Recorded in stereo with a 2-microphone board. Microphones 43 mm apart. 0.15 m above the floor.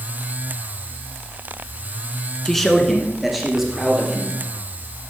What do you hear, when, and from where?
2.5 s a man speaking: 10° left (ahead or behind), 1.2 m; by 4.3 s 5° right (ahead or behind), 3 m